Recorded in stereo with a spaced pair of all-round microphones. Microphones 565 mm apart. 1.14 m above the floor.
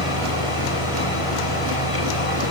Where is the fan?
70° left (ahead or behind), 4.5 m.